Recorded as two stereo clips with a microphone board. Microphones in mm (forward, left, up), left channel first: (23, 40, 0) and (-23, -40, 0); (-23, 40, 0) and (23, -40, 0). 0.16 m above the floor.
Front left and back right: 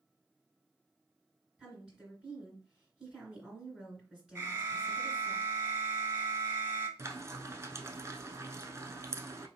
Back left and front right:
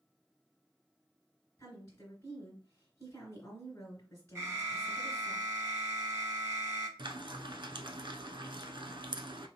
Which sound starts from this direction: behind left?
A woman speaking, at 1.6 s.